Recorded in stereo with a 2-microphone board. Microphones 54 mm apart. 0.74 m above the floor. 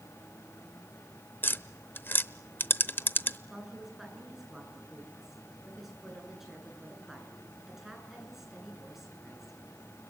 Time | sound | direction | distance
1.4 | tapping | 40° left (ahead or behind) | 0.7 m
3.5 | a woman speaking | 5° right (ahead or behind) | 9.5 m